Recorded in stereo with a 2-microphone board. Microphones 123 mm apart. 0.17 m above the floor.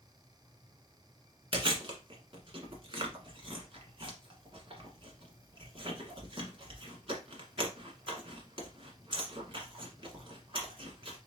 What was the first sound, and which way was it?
Chewing, 45° right (ahead or behind).